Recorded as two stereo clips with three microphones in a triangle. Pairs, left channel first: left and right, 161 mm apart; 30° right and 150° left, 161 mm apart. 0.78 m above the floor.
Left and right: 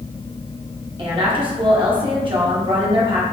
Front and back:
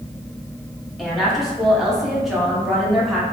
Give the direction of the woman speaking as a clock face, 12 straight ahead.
4 o'clock.